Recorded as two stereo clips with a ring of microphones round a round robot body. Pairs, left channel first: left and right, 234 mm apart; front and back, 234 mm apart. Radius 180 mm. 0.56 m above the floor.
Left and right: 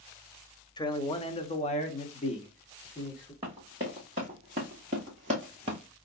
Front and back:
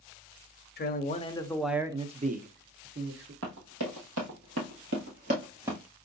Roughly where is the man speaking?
Ahead left.